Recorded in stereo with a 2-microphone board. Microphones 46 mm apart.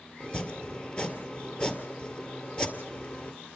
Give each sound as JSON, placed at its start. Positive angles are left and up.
{"t": 0.2, "sound": "chopping", "side_deg": 25, "distance_m": 2.0}